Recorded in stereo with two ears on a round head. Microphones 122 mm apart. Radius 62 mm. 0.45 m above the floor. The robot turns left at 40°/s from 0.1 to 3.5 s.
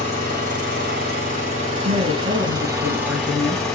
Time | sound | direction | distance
0.0 | an engine running | 50° right | 3 m
1.9 | a woman speaking | 100° right | 2.5 m